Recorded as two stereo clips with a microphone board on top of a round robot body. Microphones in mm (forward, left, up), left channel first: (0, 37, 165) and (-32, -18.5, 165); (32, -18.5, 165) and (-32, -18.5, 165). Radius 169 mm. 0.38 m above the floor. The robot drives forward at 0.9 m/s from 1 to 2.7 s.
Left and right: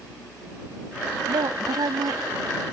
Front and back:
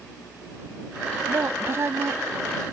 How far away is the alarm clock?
No alarm clock in this recording.